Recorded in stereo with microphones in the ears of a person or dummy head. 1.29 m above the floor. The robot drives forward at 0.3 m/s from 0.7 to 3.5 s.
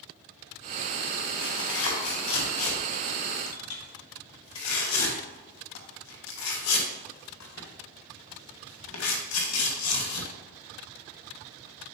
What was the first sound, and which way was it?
Tearing paper, 70° left (ahead or behind).